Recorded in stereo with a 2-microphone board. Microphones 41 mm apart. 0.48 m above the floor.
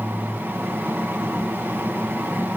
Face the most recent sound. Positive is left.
No sound to turn to.